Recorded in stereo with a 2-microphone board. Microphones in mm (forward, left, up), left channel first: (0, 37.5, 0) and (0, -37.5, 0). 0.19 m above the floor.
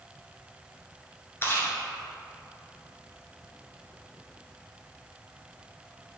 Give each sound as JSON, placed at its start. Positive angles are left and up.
{"t": 1.4, "sound": "chewing", "side_deg": 35, "distance_m": 1.6}